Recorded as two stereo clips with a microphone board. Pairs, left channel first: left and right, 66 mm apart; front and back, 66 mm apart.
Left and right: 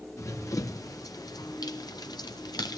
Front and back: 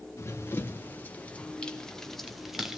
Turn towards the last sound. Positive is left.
turn(degrees=95)